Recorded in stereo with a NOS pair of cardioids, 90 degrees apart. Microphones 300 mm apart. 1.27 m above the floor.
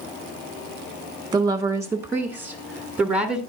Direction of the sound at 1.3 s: 15° right.